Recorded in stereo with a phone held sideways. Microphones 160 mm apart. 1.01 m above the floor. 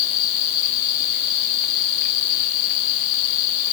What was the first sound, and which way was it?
Only background noise.